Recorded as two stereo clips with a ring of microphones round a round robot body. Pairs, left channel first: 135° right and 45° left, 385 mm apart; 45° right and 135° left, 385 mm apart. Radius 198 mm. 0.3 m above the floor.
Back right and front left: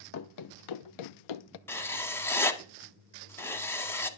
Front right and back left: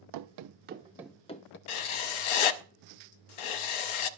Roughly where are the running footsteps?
Behind.